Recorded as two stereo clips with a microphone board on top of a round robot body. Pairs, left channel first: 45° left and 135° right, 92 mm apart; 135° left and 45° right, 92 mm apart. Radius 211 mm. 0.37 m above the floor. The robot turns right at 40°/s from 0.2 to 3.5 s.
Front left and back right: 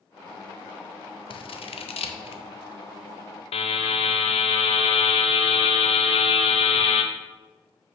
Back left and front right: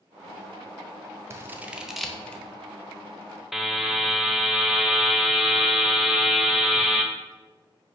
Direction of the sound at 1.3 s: 15° left.